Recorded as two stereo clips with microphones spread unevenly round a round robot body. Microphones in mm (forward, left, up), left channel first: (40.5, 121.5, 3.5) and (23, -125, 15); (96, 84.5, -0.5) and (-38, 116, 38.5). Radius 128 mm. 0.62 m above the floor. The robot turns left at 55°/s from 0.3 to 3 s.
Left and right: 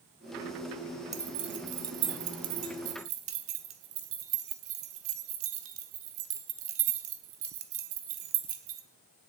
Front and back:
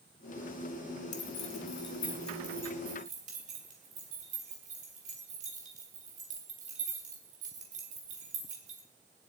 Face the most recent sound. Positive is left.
turn(degrees=-130)